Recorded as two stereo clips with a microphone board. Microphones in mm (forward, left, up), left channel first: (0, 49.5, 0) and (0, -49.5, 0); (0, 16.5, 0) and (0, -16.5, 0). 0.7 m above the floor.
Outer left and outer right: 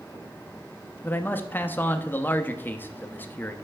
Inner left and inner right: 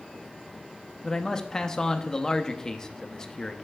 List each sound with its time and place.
1.0 s a man speaking: 20° left (ahead or behind), 0.6 m